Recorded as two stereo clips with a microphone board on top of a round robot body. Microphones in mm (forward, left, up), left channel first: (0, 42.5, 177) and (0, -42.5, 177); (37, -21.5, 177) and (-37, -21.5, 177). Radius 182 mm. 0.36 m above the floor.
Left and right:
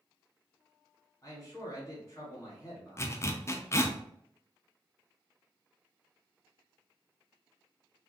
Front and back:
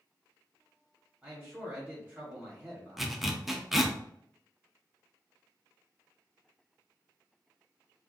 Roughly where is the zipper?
Left.